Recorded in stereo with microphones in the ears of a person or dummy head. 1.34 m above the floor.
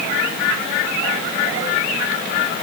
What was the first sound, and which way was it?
Only background noise.